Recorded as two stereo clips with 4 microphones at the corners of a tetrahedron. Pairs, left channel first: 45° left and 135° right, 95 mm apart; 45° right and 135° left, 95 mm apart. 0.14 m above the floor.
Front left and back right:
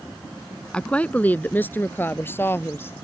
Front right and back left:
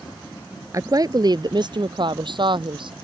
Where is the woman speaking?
120° left; by 2.9 s 110° left.